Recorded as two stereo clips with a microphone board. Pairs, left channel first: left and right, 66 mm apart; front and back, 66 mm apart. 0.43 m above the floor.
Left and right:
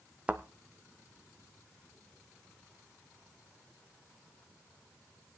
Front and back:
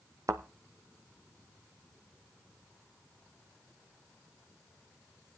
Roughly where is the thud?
Behind.